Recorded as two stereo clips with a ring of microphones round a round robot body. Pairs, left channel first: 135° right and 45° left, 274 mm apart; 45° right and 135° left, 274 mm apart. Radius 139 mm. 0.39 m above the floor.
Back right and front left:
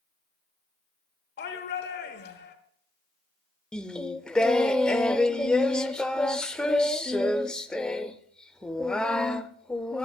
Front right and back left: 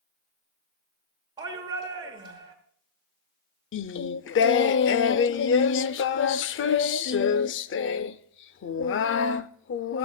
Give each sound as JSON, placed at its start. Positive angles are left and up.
{"t": 1.4, "sound": "a shout", "azimuth_deg": -160, "distance_m": 1.3}
{"t": 3.7, "sound": "singing", "azimuth_deg": -50, "distance_m": 0.5}